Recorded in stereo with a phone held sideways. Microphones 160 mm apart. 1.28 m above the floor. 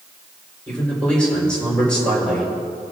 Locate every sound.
0.7 s a man speaking: 5° left (ahead or behind), 4.5 m